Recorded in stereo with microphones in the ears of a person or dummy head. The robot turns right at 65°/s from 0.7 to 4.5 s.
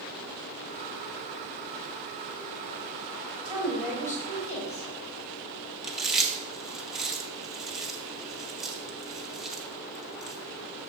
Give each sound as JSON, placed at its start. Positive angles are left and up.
{"t": 3.5, "sound": "a woman speaking", "azimuth_deg": -25, "distance_m": 3.5}
{"t": 5.8, "sound": "chewing", "side_deg": -10, "distance_m": 0.6}